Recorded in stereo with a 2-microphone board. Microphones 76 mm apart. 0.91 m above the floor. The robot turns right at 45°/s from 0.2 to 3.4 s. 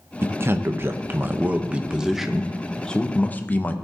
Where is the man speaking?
100° right, 0.6 m; by 3.7 s 45° left, 0.6 m.